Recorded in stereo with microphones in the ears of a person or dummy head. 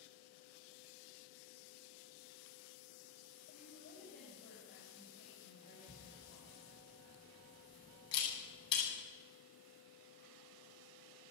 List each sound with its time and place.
3.5 s a woman speaking: 50° left (ahead or behind), 7.5 m
5.9 s a camera shutter: 25° left (ahead or behind), 9.5 m